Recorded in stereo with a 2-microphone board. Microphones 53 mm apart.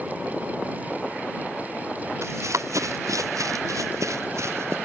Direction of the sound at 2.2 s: 65° right (ahead or behind).